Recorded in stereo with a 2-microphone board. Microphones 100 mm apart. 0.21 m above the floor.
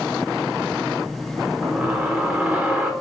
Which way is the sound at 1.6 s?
10° right (ahead or behind).